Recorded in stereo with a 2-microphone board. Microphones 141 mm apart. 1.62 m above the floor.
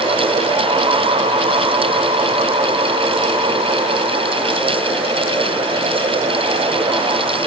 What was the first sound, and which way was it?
Only background noise.